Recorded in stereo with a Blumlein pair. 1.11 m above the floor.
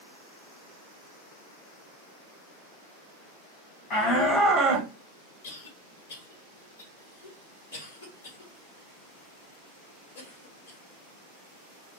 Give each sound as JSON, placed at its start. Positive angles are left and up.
{"t": 3.9, "sound": "a shout", "azimuth_deg": 35, "distance_m": 0.9}
{"t": 5.4, "sound": "a cough", "azimuth_deg": 65, "distance_m": 1.4}